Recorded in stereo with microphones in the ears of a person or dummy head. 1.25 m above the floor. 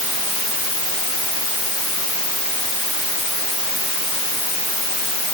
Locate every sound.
Only background noise.